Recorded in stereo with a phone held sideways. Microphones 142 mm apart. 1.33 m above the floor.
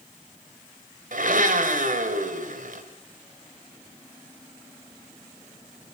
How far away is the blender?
About 3 m.